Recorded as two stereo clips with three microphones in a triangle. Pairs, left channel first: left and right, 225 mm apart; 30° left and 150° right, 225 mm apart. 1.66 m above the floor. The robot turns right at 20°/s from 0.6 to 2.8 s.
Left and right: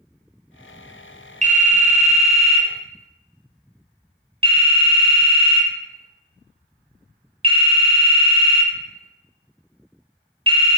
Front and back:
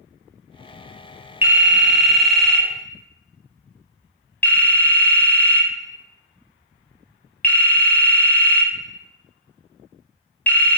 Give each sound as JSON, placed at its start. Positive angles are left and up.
{"t": 1.4, "sound": "a phone ringing", "azimuth_deg": -75, "distance_m": 0.6}